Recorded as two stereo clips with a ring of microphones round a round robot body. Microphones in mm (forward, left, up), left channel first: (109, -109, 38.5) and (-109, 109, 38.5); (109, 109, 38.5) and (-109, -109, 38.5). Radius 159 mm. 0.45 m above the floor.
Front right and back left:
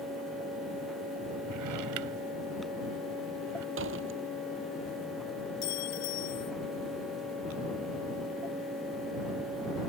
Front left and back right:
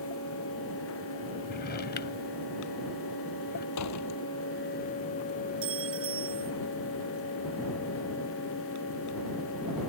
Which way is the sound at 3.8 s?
85° left.